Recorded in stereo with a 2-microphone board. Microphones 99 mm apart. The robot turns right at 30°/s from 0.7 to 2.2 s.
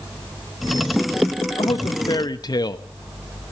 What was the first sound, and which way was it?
A man speaking, 55° left (ahead or behind).